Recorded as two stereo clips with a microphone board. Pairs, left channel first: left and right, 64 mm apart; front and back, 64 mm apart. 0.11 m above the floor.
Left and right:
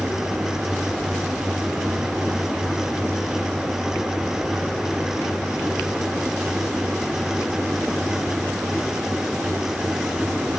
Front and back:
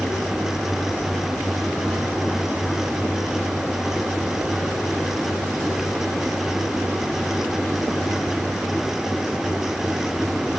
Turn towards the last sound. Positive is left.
No sound to turn to.